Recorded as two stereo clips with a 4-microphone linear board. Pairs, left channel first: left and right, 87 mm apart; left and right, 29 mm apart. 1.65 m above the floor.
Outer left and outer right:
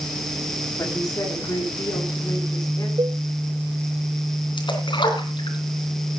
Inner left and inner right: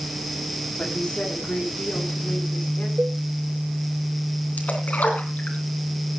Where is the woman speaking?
40° left (ahead or behind), 4.5 m; by 2.9 s 45° left (ahead or behind), 5.5 m.